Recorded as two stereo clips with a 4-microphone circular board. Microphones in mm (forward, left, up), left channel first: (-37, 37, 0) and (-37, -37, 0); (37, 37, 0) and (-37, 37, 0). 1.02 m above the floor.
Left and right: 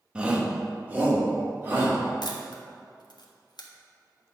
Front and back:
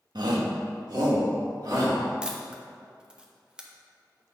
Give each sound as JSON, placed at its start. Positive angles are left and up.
{"t": 0.1, "sound": "a shout", "azimuth_deg": -165, "distance_m": 1.1}
{"t": 2.2, "sound": "a camera shutter", "azimuth_deg": 105, "distance_m": 0.9}